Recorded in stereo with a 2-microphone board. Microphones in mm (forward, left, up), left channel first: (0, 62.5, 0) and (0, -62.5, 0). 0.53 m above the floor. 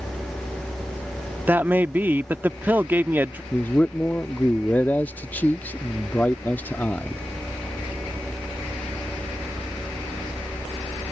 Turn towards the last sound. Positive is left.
turn(degrees=15)  # may be behind; listen again after turning